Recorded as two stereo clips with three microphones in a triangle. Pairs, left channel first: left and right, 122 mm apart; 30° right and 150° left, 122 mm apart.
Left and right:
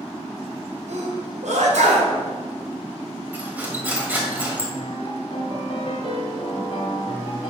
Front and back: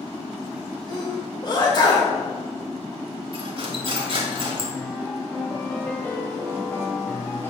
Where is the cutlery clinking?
165° right, 1.7 m.